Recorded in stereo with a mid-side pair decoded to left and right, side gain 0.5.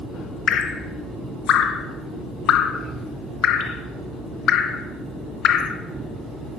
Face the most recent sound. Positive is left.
turn(degrees=60)